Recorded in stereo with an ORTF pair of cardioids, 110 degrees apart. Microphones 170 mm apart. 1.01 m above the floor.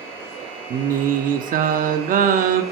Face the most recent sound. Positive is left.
turn(degrees=-55)